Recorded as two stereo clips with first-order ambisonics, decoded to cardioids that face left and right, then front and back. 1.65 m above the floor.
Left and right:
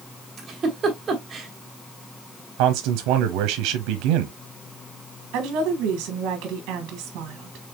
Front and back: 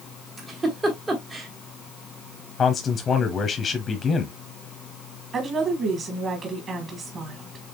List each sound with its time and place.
0.4 s a giggle: 130° right, 1.3 m
2.6 s a man speaking: 70° right, 0.8 m
5.3 s a woman speaking: 120° right, 1.5 m